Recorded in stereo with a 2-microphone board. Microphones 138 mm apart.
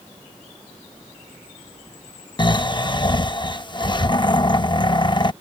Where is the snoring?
35° left (ahead or behind).